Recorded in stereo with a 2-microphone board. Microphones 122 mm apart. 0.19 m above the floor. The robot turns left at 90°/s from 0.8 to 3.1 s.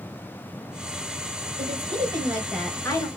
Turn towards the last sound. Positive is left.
turn(degrees=135)